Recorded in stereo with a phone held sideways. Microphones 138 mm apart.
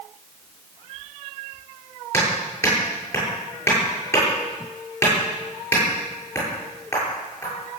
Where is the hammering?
20° left (ahead or behind), 9 m.